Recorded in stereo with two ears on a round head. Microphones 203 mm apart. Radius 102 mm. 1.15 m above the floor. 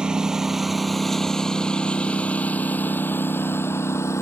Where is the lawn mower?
5° right (ahead or behind); by 4.2 s 10° left (ahead or behind).